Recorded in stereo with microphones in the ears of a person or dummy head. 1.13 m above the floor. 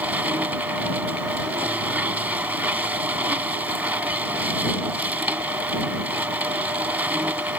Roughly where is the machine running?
Centre.